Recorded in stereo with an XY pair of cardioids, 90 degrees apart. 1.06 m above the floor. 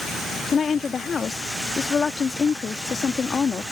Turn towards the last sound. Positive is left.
turn(degrees=45)